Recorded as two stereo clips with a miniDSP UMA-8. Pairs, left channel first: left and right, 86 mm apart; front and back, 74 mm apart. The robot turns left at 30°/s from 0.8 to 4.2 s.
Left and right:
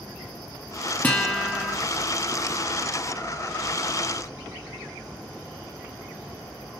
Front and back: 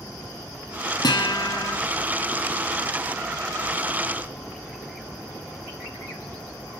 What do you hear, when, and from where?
1.0 s a guitar: 20° left, 2.0 m; by 1.8 s 5° right, 2.0 m